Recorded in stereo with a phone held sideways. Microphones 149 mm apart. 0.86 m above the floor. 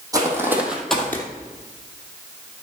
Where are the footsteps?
25° right (ahead or behind), 2 m; by 1.2 s 20° left (ahead or behind), 1.6 m.